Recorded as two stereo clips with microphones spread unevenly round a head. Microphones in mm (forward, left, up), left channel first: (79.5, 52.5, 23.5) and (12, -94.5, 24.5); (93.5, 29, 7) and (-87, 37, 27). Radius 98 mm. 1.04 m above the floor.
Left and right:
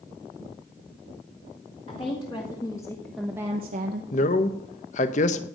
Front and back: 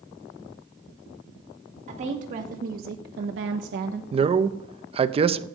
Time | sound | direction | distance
1.9 | a woman speaking | 125° left | 2.5 m
4.1 | a man speaking | 115° left | 0.8 m